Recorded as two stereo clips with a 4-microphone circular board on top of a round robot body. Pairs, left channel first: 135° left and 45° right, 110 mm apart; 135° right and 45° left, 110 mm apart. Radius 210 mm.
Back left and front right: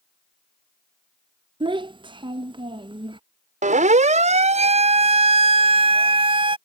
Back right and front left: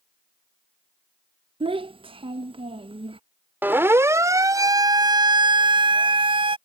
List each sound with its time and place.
1.6 s a child speaking: 5° left
3.6 s a siren: 30° right; by 6.6 s straight ahead